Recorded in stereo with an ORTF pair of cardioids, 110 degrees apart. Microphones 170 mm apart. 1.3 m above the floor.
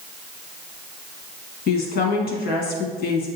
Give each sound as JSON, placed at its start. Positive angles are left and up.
{"t": 1.7, "sound": "a woman speaking", "azimuth_deg": 65, "distance_m": 1.2}